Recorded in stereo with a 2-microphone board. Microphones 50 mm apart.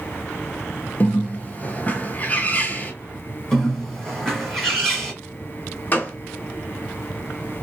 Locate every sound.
1.0 s a bird: 35° left (ahead or behind), 0.7 m
3.5 s a bird: 10° left (ahead or behind), 1.9 m
5.9 s a gunshot: 35° left (ahead or behind), 0.9 m